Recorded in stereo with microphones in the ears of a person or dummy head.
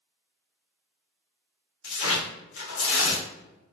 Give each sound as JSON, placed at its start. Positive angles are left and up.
{"t": 1.8, "sound": "tearing paper", "side_deg": 75, "distance_m": 1.6}